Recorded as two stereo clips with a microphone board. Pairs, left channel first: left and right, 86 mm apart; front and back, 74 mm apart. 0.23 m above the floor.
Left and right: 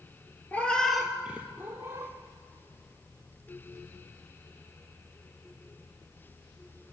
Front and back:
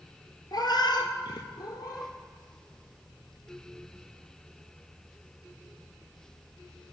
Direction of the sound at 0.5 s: 20° left.